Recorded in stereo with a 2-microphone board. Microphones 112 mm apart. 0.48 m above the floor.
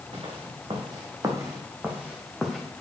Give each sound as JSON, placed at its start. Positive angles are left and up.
{"t": 0.1, "sound": "footsteps", "side_deg": -55, "distance_m": 2.5}